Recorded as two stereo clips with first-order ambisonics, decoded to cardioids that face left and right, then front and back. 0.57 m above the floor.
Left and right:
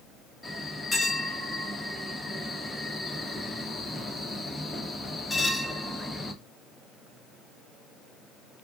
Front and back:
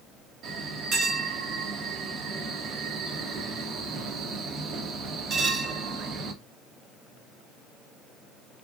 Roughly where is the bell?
Behind.